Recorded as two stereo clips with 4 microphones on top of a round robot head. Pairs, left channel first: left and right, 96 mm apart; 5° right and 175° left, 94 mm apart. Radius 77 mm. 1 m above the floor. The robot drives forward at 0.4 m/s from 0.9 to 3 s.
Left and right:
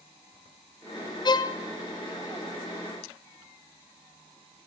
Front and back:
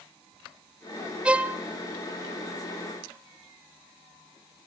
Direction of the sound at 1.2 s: 105° left.